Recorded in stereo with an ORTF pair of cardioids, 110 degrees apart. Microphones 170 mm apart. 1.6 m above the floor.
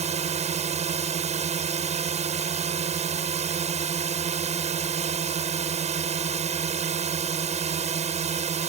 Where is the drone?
40° right.